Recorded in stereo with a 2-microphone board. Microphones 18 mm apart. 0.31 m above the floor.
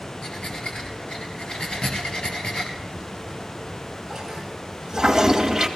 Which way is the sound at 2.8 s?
20° right (ahead or behind).